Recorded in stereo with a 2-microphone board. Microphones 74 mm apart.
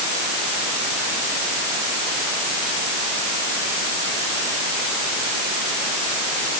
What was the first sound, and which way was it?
Only background noise.